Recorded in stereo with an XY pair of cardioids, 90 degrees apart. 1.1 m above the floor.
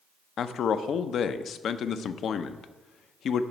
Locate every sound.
0.4 s a man speaking: 70° left, 0.6 m